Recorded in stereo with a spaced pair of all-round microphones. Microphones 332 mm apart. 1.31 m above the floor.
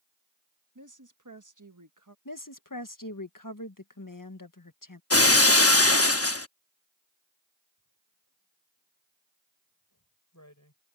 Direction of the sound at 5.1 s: 45° left (ahead or behind).